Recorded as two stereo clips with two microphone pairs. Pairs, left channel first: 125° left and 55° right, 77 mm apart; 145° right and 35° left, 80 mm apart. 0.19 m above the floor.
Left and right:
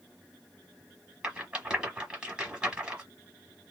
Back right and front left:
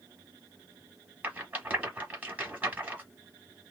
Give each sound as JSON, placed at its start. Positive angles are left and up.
{"t": 1.2, "sound": "a rattle", "azimuth_deg": 10, "distance_m": 1.1}